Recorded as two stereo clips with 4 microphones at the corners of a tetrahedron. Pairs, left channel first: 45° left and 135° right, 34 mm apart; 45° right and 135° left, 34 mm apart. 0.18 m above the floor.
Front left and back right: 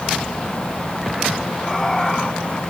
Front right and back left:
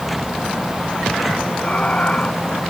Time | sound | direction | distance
1.6 | laughter | 40° right | ?